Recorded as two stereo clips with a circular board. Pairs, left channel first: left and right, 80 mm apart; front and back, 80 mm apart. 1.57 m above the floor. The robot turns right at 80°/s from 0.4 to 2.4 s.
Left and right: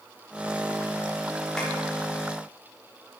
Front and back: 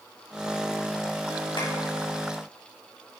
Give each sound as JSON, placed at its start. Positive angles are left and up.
{"t": 1.6, "sound": "tapping", "azimuth_deg": 10, "distance_m": 4.0}